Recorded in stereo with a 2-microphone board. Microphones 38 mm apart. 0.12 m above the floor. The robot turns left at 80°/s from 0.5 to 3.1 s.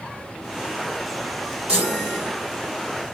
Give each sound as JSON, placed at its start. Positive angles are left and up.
{"t": 1.7, "sound": "a chime", "azimuth_deg": -35, "distance_m": 4.5}